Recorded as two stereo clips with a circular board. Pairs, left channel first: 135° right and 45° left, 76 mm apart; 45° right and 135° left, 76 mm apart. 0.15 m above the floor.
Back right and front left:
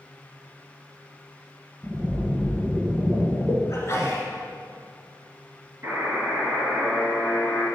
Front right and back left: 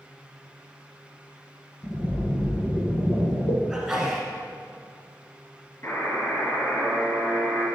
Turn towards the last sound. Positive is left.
turn(degrees=-5)